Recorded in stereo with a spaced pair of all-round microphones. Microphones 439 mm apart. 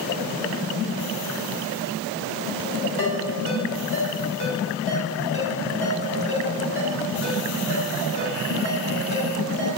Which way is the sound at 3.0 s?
30° left (ahead or behind).